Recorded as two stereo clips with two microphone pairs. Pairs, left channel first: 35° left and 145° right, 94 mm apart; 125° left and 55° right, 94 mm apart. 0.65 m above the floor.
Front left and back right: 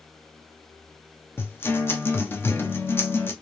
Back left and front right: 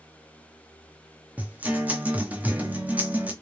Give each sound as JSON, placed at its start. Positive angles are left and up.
{"t": 1.4, "sound": "a guitar", "azimuth_deg": 5, "distance_m": 0.7}